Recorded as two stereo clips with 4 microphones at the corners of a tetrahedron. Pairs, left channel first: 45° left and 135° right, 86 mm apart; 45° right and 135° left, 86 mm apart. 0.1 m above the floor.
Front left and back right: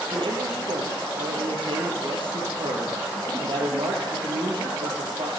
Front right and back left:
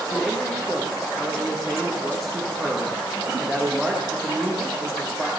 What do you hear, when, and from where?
0.1 s a man speaking: 135° right, 3.5 m